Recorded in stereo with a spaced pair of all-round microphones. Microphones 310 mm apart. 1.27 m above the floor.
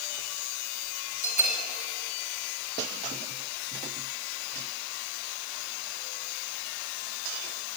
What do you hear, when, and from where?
1.2 s a bell: 75° right (ahead or behind), 1.1 m